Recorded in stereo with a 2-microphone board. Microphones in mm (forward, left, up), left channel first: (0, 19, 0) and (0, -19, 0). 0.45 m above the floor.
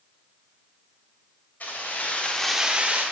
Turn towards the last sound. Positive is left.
turn(degrees=-45)  # may be behind; listen again after turning